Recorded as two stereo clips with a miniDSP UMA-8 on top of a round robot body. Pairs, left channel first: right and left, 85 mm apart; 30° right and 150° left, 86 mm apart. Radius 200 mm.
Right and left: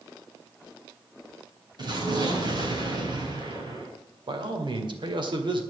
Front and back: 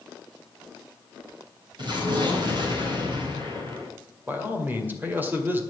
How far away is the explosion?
About 4 m.